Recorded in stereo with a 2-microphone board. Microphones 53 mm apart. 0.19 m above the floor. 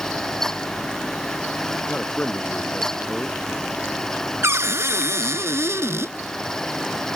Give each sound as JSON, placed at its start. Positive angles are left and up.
{"t": 1.9, "sound": "a man speaking", "side_deg": 15}
{"t": 4.4, "sound": "a cupboard door", "side_deg": -60}